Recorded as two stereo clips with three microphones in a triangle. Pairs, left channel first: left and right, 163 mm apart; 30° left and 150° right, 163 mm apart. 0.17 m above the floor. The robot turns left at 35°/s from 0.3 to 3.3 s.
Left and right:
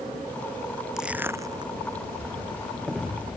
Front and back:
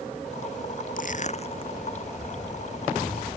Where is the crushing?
5° right; by 1.7 s 30° right.